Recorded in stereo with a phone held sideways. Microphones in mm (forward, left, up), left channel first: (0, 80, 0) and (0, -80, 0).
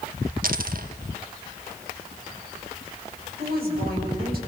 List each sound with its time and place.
0.4 s a dropped coin: 60° right (ahead or behind), 1.1 m
3.4 s a woman speaking: 75° right (ahead or behind), 6.5 m